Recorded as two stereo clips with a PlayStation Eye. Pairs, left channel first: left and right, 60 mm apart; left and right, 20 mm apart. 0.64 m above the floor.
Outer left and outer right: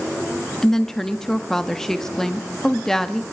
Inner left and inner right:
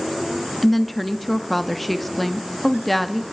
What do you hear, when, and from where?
0.6 s a woman speaking: 5° left (ahead or behind), 0.7 m